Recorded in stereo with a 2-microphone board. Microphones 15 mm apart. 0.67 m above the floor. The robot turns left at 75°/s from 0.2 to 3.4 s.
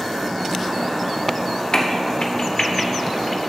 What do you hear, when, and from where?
1.7 s a crack: 50° left (ahead or behind), 1.1 m; by 3.5 s 5° left (ahead or behind), 1.1 m